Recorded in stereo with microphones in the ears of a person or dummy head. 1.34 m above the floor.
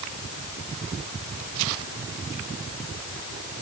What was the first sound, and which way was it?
Only background noise.